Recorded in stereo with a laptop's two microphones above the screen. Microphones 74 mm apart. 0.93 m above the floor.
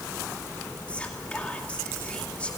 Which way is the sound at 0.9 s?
15° left (ahead or behind).